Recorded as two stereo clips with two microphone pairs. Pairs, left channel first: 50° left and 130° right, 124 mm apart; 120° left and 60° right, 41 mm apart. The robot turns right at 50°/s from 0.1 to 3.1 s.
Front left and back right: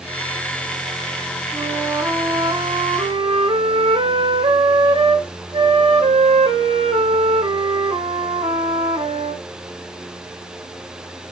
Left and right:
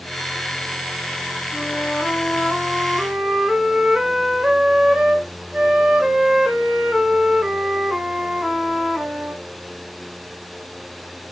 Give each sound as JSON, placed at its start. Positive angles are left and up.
{"t": 1.5, "sound": "a flute", "azimuth_deg": 145, "distance_m": 0.7}